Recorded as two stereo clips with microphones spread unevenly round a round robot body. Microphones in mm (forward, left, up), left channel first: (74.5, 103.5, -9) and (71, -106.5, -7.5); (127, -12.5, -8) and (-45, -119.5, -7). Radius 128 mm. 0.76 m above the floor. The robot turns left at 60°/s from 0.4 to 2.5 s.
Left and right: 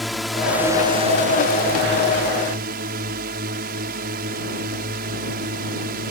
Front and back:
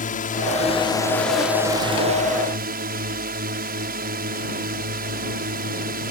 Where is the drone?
Straight ahead; by 6.1 s 125° right.